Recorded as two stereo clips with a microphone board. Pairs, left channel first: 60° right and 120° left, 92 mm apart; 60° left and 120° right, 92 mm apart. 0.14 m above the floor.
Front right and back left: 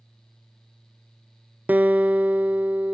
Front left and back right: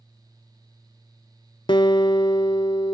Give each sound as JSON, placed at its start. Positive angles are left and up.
{"t": 1.7, "sound": "a guitar", "azimuth_deg": 50, "distance_m": 0.6}